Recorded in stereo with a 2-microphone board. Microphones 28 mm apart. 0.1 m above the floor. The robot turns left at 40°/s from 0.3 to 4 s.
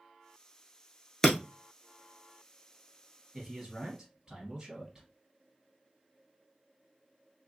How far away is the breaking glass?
About 0.8 m.